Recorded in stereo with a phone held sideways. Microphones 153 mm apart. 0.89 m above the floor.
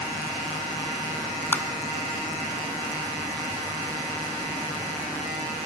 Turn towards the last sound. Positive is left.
turn(degrees=10)  # may be behind; listen again after turning